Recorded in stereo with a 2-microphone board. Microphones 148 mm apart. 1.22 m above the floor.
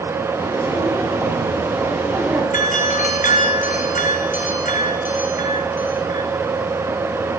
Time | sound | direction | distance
0.3 | footsteps | 15° right (ahead or behind) | 8.5 m
2.5 | a doorbell | 60° left (ahead or behind) | 7 m